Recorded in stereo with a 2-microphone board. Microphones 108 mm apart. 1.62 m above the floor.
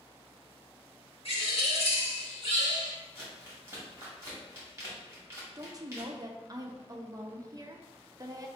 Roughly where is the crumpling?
Right.